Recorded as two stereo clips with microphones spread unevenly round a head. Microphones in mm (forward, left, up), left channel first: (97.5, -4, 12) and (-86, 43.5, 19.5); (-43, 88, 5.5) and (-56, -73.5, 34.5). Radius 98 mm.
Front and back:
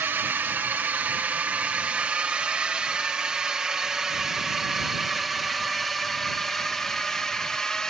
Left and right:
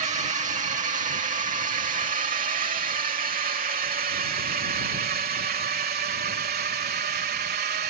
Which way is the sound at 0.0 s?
120° right.